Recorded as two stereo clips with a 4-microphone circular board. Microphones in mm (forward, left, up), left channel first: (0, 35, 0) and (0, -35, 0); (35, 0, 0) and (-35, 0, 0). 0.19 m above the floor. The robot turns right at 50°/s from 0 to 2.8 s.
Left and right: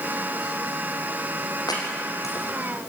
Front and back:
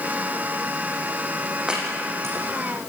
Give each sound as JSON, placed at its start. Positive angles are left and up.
{"t": 1.7, "sound": "chopping", "azimuth_deg": 105, "distance_m": 7.0}